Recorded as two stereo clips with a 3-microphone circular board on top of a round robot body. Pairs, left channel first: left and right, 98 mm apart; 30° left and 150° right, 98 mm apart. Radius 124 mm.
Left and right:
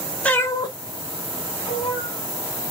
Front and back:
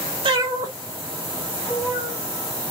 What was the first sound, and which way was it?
A cat meowing, 170° left.